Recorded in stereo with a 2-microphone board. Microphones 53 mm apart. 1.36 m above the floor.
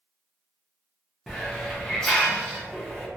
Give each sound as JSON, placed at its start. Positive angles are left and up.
{"t": 1.3, "sound": "a hiss", "side_deg": 10, "distance_m": 0.7}